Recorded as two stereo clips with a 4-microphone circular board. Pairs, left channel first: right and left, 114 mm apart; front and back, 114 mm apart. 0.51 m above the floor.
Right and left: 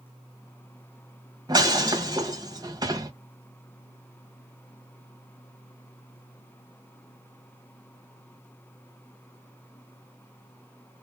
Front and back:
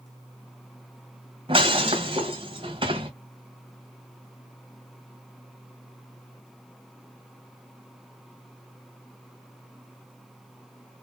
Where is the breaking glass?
140° left, 1.5 m.